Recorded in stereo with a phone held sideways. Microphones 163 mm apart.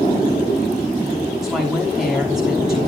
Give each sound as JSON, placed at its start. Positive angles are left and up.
{"t": 1.4, "sound": "a woman speaking", "side_deg": -5, "distance_m": 6.5}